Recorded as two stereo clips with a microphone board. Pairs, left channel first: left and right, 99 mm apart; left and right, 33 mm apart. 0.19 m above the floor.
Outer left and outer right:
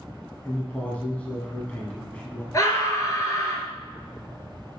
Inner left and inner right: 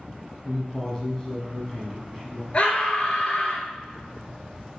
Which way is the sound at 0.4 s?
15° left (ahead or behind).